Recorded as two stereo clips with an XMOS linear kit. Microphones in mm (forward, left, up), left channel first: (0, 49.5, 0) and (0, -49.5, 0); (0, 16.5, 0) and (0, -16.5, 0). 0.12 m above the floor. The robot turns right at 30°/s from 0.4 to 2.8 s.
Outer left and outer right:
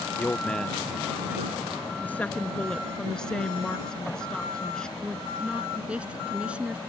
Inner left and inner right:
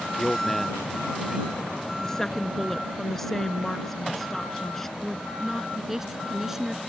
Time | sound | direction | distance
0.2 | a man speaking | 170° left | ?
2.0 | a woman speaking | 15° left (ahead or behind) | ?
5.0 | a woman speaking | 10° right (ahead or behind) | ?